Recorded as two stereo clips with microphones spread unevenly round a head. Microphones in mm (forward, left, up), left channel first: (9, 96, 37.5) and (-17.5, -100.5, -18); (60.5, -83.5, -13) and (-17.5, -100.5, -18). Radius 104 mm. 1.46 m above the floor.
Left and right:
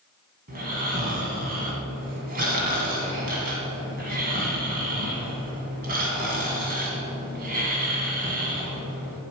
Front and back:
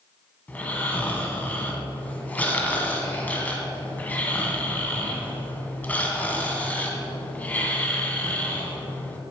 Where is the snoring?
45° right, 1.9 m.